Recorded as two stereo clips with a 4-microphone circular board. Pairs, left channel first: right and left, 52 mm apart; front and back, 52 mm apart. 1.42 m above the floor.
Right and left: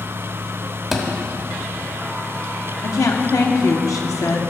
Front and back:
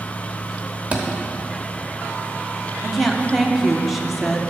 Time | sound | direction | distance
0.9 | a thud | straight behind | 1.2 m
2.8 | a woman speaking | 90° right | 1.0 m